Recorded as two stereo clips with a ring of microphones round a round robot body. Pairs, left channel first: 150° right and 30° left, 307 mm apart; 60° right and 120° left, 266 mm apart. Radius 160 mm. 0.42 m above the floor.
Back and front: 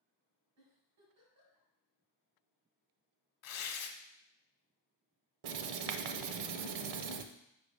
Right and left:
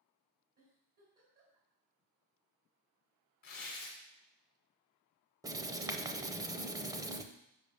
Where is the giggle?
65° left, 3 m.